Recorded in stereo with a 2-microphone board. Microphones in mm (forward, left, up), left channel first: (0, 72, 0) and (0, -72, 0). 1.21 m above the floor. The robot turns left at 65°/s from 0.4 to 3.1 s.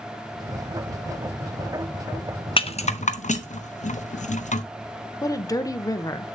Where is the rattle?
40° left (ahead or behind), 0.5 m; by 4.6 s 55° left (ahead or behind), 0.5 m.